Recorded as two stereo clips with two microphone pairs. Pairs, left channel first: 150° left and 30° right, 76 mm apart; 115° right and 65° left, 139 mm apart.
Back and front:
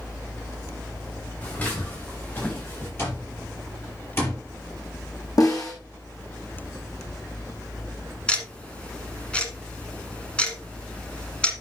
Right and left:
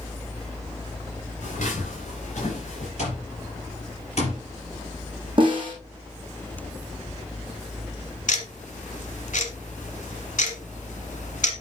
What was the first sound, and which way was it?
Footsteps, 145° right.